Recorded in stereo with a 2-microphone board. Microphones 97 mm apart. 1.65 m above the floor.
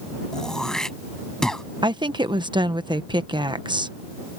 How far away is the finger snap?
I don't hear a finger snap.